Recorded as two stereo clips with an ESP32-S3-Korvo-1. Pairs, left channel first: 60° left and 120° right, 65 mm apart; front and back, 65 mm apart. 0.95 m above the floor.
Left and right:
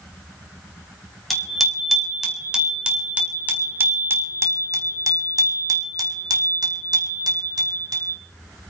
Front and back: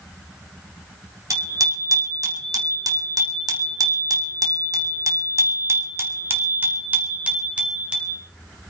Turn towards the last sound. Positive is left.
turn(degrees=-105)